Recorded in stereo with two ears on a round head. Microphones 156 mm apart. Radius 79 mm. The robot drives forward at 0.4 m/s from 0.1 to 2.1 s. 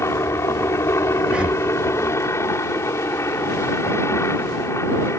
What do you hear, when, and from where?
0.0 s a helicopter: 15° left (ahead or behind)
1.2 s breathing: 5° right (ahead or behind)